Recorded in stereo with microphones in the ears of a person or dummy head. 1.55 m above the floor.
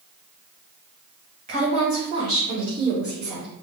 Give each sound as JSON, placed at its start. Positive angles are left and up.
{"t": 1.5, "sound": "a woman speaking", "side_deg": -40, "distance_m": 1.9}